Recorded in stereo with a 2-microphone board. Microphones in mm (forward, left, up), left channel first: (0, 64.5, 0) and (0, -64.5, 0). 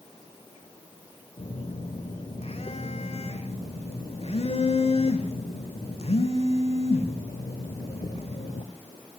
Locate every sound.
1.4 s a phone buzzing: 50° left (ahead or behind), 0.9 m